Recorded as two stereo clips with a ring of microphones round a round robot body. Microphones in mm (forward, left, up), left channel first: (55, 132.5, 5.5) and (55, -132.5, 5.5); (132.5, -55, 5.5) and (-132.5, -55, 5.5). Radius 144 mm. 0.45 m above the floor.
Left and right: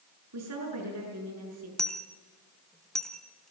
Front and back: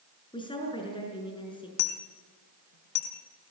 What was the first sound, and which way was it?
A woman speaking, 70° right.